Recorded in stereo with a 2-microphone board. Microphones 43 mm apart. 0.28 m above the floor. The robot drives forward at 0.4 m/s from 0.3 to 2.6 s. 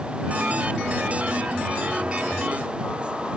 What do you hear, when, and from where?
Only background noise.